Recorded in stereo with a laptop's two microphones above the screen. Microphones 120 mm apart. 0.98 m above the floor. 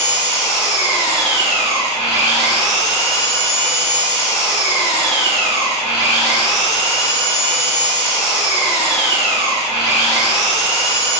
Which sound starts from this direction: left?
An engine running, at 0.0 s.